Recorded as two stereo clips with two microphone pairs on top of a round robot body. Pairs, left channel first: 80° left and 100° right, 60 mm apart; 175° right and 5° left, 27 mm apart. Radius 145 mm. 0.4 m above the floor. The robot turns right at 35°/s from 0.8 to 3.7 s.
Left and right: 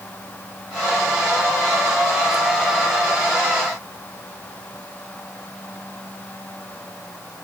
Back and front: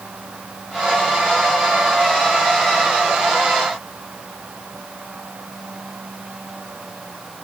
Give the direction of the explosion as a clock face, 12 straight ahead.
No explosion in this recording.